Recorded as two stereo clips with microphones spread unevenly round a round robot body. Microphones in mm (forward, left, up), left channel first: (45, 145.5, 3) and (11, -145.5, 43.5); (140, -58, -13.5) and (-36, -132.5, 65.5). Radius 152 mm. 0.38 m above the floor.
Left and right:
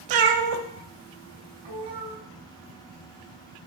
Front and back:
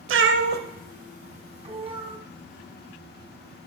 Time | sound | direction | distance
0.1 | a cat meowing | 125° right | 0.5 m